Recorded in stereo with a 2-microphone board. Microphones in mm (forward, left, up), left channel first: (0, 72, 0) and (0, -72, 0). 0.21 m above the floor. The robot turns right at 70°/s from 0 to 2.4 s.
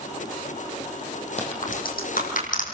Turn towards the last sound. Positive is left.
turn(degrees=65)  # may be behind; listen again after turning